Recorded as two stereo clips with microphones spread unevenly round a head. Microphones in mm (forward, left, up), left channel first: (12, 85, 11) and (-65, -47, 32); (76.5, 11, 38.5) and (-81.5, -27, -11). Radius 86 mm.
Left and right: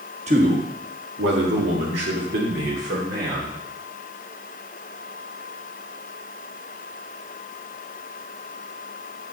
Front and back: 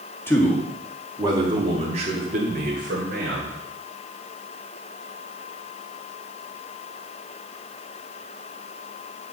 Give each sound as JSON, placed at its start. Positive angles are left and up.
{"t": 0.3, "sound": "a man speaking", "azimuth_deg": -70, "distance_m": 1.8}